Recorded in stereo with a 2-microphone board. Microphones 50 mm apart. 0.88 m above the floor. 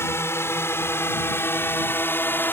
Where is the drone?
60° left (ahead or behind); by 2.5 s 45° left (ahead or behind).